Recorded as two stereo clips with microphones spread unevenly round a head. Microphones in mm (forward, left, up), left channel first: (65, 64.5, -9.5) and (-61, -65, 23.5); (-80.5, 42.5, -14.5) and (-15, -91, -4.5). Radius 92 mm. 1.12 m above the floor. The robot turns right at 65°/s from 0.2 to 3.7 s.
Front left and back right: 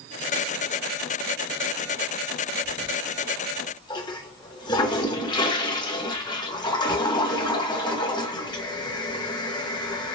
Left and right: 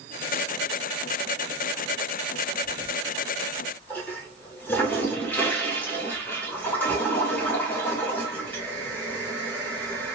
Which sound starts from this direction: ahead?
A toilet flushing, at 2.6 s.